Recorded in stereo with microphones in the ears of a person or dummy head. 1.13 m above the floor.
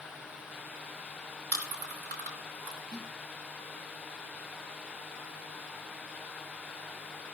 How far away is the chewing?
About 4 m.